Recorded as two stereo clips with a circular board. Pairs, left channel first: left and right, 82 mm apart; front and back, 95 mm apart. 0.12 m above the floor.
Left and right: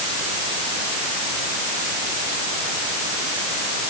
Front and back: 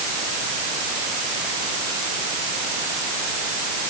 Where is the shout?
I don't hear a shout.